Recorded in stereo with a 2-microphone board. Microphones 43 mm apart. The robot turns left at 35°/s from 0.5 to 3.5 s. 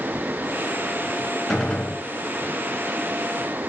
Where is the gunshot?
5° left (ahead or behind), 2.5 m; by 2.0 s 25° left (ahead or behind), 2.5 m.